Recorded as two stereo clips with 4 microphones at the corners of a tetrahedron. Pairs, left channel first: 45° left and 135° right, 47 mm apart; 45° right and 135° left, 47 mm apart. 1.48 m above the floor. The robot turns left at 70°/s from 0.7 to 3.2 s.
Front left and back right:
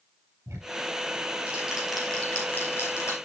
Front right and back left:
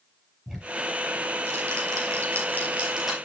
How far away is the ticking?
About 4.5 m.